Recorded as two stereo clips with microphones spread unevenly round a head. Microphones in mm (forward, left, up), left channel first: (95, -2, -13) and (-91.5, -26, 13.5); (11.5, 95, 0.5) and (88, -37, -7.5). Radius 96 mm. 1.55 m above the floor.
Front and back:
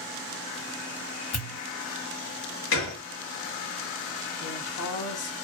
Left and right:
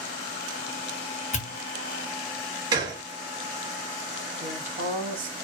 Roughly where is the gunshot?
Ahead.